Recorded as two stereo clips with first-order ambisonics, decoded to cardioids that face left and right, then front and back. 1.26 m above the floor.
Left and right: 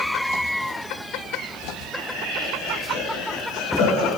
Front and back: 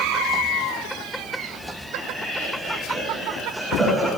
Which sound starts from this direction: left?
Laughter, at 1.9 s.